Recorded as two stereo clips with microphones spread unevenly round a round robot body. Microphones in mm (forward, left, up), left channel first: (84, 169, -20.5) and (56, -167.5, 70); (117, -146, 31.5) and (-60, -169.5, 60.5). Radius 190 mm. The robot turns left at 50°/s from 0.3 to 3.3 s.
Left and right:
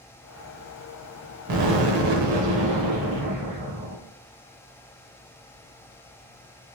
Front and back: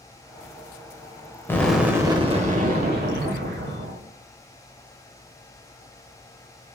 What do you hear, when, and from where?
1.5 s an explosion: 70° right, 1.0 m; by 4.0 s 160° right, 1.0 m